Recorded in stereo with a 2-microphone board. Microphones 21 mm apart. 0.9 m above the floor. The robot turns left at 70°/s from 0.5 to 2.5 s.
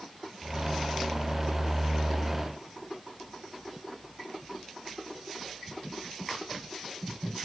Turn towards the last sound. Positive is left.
No sound to turn to.